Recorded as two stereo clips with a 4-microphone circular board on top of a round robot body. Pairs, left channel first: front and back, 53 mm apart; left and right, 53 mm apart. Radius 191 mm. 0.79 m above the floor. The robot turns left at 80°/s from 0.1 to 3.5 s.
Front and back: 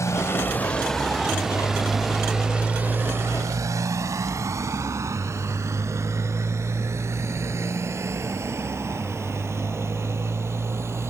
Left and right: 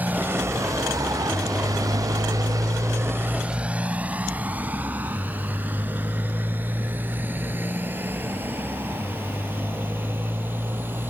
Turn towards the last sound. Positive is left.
turn(degrees=-145)